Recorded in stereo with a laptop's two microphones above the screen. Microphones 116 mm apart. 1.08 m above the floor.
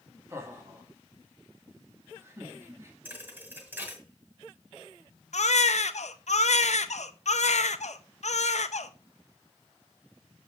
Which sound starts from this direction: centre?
A thud, at 3.0 s.